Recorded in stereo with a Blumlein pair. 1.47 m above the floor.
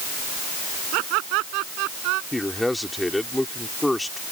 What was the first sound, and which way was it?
Laughter, 40° right.